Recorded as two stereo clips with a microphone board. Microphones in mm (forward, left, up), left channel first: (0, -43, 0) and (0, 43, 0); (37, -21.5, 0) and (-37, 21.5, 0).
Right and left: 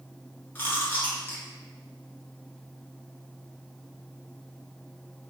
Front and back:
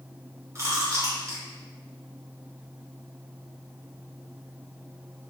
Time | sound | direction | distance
0.6 | chewing | 155° right | 1.0 m